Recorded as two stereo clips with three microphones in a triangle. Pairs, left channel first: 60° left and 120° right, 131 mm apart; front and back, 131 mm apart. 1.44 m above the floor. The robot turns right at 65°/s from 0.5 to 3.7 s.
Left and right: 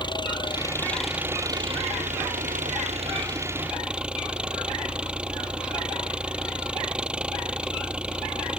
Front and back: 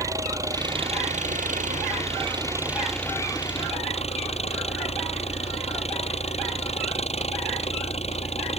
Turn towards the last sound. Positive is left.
turn(degrees=-35)